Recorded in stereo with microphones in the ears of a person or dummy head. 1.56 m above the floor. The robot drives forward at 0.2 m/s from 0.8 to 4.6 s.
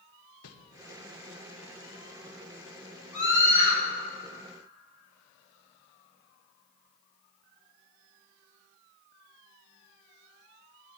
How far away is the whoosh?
About 0.8 m.